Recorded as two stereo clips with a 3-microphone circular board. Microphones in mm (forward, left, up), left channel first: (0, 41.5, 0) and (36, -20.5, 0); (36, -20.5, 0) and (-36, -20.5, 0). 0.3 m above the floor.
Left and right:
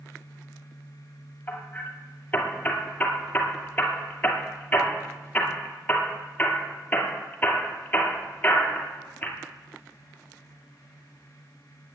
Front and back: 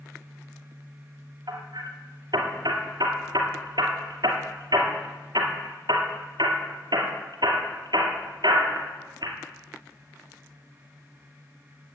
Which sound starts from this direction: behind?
Hammering, at 1.5 s.